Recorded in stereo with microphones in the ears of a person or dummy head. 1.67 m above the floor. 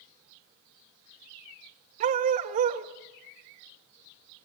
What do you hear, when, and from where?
2.0 s a dog barking: 45° right (ahead or behind), 2.5 m